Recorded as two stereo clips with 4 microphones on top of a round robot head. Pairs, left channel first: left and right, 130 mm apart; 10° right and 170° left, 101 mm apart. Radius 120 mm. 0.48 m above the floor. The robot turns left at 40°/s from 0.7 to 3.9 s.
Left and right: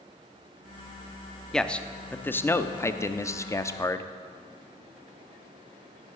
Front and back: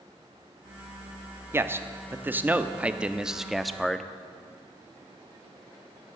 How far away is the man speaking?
About 0.8 m.